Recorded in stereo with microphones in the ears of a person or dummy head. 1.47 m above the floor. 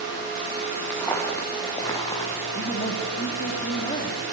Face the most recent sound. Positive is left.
turn(degrees=30)  # may be behind; listen again after turning